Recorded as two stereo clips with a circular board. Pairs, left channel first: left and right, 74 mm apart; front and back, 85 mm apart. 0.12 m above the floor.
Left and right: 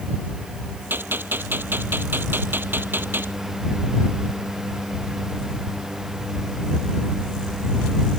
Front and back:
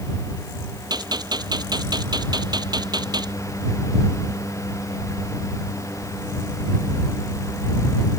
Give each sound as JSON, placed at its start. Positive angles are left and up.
{"t": 0.9, "sound": "a gunshot", "azimuth_deg": -150}